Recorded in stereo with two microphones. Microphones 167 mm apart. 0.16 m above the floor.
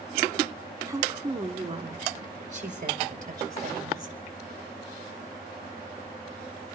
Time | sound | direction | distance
0.9 | a woman speaking | 20° right (ahead or behind) | 1.1 m